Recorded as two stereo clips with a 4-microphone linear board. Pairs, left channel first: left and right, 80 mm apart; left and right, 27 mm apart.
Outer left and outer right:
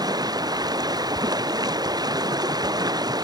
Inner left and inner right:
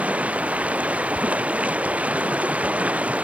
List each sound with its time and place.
0.0 s running water: 55° right (ahead or behind)